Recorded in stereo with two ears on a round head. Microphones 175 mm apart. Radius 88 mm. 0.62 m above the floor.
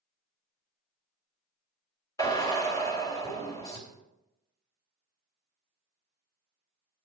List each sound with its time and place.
2.2 s a drill: 20° left (ahead or behind), 2.5 m